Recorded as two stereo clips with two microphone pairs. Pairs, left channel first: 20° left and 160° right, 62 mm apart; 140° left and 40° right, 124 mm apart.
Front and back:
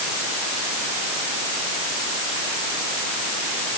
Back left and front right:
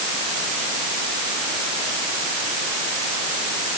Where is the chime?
No chime in this recording.